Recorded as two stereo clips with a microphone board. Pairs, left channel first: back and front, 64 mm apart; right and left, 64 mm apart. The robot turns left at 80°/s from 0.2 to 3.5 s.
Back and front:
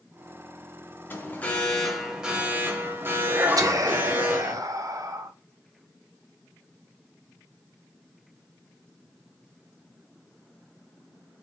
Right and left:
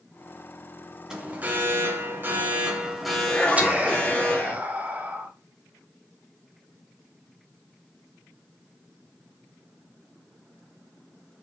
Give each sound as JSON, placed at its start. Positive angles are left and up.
{"t": 1.1, "sound": "an alarm", "azimuth_deg": 160, "distance_m": 0.9}
{"t": 3.6, "sound": "whispering", "azimuth_deg": 25, "distance_m": 0.9}